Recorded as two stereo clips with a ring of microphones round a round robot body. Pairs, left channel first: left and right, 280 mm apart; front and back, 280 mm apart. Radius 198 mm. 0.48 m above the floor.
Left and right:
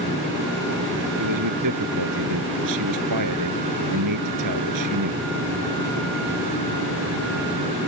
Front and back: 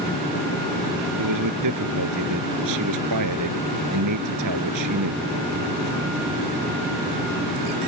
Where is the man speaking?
135° right.